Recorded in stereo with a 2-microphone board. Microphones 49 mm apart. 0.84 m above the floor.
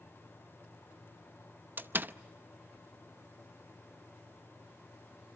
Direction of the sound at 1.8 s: 40° right (ahead or behind).